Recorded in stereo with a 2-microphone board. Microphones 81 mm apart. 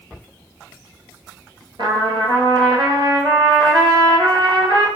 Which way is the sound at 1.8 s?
80° right.